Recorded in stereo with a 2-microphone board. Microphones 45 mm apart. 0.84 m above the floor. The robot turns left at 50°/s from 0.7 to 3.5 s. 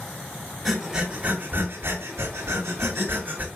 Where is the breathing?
5° right (ahead or behind), 2.5 m; by 3.5 s 35° right (ahead or behind), 2.5 m.